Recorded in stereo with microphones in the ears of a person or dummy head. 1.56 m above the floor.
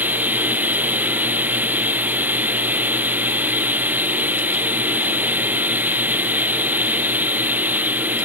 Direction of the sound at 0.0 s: 10° right (ahead or behind).